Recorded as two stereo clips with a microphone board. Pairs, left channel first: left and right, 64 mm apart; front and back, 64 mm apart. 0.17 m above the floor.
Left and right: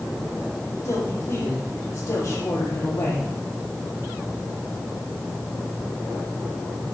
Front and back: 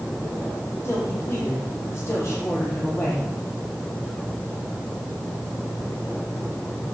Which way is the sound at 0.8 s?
45° left.